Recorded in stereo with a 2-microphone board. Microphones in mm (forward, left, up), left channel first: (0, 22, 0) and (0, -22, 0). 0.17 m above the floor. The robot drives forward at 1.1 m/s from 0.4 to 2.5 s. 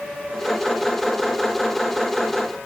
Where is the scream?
No scream in this recording.